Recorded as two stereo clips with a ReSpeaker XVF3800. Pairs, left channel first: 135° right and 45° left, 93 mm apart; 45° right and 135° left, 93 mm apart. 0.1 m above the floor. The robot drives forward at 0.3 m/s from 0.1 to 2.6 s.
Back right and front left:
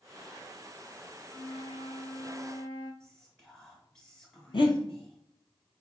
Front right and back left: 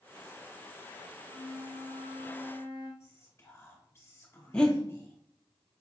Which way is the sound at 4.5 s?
125° right.